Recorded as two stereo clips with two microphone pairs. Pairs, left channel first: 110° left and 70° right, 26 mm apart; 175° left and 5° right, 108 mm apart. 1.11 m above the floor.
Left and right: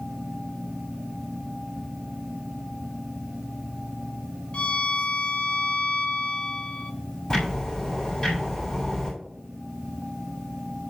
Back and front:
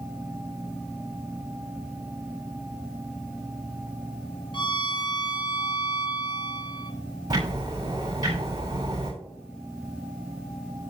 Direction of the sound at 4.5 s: 145° left.